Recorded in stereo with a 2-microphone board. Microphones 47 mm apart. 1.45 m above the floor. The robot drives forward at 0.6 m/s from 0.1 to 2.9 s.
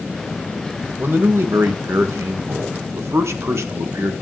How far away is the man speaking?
About 1.9 m.